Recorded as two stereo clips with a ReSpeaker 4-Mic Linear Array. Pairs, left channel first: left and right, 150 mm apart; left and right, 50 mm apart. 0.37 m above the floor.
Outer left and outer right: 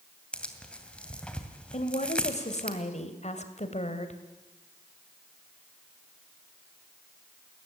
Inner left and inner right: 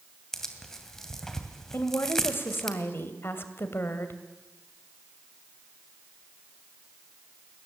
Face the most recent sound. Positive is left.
turn(degrees=50)  # may be behind; listen again after turning